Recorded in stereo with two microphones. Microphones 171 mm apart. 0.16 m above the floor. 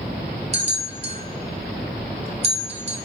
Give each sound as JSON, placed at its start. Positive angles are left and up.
{"t": 0.5, "sound": "a bell", "side_deg": -35, "distance_m": 1.3}